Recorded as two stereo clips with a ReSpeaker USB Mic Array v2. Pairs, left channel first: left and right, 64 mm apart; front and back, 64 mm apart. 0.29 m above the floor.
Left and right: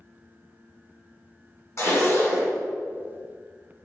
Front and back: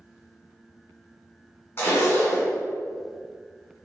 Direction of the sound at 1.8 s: 55° left.